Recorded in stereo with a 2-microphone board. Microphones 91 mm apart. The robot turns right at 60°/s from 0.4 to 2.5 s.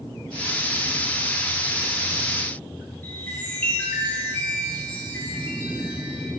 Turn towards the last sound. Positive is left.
turn(degrees=20)  # may be behind; listen again after turning